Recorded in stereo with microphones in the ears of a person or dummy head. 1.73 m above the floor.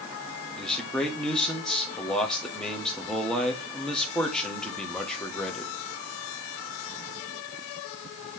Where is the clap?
No clap in this recording.